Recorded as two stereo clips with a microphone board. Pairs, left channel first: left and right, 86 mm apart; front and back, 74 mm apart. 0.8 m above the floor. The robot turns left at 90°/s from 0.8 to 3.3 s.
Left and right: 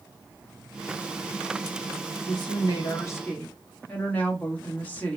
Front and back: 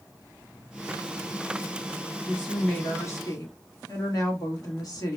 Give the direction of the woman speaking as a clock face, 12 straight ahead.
8 o'clock.